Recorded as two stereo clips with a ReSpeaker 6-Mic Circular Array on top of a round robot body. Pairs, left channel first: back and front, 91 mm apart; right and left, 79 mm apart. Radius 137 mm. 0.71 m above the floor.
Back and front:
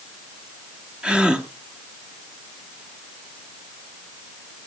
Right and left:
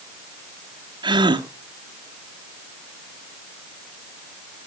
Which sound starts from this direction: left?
A gasp, at 1.0 s.